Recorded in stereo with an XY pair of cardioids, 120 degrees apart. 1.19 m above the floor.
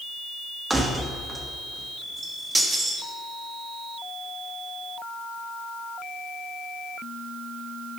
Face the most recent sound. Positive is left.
turn(degrees=-15)